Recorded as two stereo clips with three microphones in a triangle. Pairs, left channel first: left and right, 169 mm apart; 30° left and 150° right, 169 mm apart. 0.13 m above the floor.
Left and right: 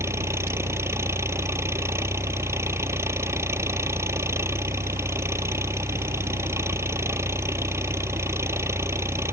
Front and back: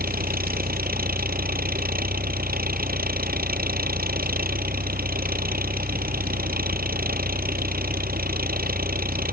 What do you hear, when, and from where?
0.0 s an engine running: 165° right